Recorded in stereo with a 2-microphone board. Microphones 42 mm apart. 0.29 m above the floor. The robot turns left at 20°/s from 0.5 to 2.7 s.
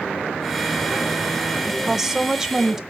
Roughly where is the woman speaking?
Centre.